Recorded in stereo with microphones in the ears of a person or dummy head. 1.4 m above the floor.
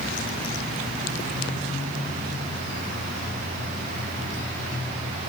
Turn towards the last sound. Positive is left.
No sound to turn to.